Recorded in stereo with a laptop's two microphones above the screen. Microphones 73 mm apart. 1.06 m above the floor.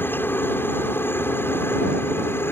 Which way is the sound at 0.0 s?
30° left (ahead or behind).